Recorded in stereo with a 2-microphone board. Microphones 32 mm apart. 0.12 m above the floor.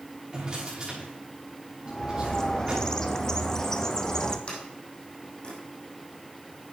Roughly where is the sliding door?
Left.